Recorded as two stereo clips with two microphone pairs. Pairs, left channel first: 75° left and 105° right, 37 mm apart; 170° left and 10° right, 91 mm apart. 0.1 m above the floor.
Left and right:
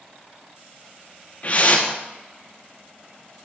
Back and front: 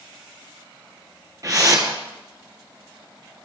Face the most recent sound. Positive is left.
turn(degrees=35)